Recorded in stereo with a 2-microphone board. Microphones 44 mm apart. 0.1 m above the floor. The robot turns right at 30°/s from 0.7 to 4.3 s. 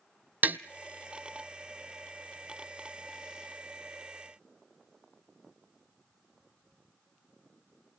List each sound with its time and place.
0.4 s tapping: 45° right (ahead or behind), 0.6 m